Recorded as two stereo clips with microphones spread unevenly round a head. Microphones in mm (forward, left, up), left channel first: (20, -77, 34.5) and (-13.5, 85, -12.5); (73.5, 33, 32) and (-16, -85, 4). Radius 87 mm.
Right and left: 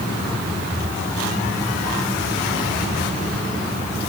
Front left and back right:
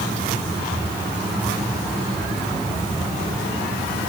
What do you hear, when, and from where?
Only background noise.